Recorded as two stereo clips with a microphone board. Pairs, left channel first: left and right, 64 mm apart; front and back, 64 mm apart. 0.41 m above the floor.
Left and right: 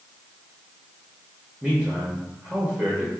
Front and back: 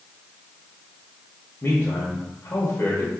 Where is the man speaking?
25° right, 1.0 m.